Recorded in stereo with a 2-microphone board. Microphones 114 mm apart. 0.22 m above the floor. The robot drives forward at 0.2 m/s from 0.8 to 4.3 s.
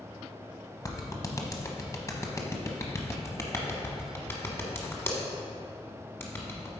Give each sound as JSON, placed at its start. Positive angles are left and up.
{"t": 0.8, "sound": "a clap", "side_deg": 30, "distance_m": 0.9}